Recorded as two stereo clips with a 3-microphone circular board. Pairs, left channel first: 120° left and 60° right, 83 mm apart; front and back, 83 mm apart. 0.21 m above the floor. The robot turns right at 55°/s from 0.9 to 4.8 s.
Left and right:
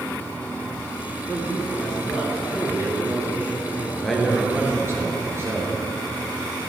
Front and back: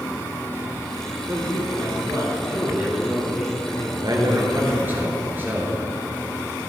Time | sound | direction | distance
1.3 | a man speaking | 165° left | 3.5 m
4.0 | a man speaking | 160° right | 2.5 m